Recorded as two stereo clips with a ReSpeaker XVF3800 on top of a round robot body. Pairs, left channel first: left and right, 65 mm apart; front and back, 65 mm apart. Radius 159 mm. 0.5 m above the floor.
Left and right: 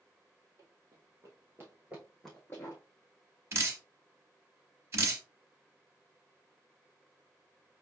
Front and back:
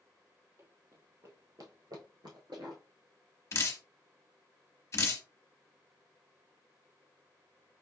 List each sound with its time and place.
0.6 s running footsteps: 135° right, 1.2 m; by 2.8 s 135° left, 0.6 m
3.5 s dripping: 45° right, 1.0 m